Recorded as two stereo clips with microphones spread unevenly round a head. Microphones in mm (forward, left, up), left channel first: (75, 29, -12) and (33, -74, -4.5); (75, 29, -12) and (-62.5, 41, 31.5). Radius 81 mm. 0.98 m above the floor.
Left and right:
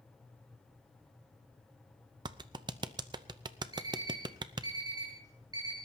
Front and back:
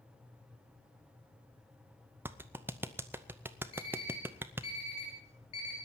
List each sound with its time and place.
2.2 s a clap: 95° right, 0.7 m
3.7 s an alarm clock: 60° right, 7 m